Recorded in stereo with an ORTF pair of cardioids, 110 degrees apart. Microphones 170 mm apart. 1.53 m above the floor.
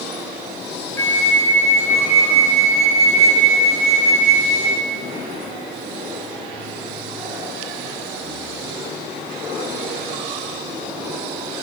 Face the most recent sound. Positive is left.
turn(degrees=15)